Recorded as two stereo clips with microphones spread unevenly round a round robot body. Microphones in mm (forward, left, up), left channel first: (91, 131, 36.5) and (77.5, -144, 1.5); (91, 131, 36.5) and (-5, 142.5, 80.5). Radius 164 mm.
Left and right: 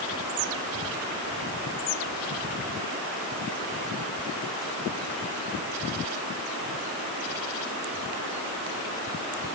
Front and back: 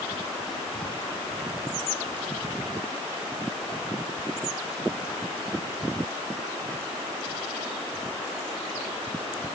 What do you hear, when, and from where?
Only background noise.